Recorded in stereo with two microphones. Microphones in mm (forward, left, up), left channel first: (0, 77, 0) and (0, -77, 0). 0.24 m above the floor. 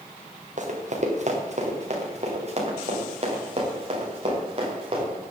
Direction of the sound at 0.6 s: 50° right (ahead or behind).